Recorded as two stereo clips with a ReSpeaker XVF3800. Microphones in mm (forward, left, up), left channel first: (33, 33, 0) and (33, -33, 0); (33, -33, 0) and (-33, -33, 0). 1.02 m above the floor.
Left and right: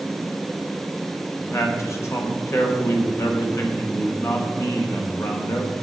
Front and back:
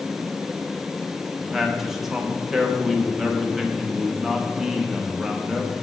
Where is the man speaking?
95° left, 1.0 m.